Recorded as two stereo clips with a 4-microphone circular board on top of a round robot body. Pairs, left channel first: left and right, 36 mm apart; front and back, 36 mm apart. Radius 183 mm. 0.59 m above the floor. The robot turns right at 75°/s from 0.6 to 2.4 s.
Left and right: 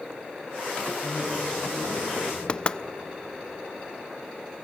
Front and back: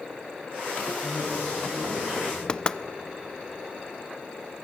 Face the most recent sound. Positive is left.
turn(degrees=50)